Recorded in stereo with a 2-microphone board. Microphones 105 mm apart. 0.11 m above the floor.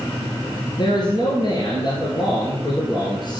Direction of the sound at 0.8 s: 45° left (ahead or behind).